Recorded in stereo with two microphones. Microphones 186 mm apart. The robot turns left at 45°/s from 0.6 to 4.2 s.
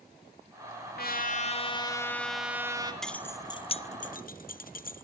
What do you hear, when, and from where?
1.0 s a trumpet: 65° left, 2 m; by 2.9 s 25° right, 2 m
3.0 s keys jangling: centre (ahead or behind), 0.6 m; by 5.0 s 55° left (ahead or behind), 0.6 m